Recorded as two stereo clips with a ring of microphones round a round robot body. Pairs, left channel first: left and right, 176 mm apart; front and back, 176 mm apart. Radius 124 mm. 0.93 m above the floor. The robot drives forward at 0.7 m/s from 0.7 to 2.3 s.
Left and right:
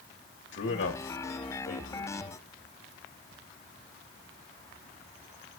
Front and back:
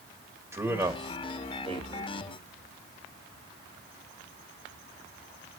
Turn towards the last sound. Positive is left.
turn(degrees=140)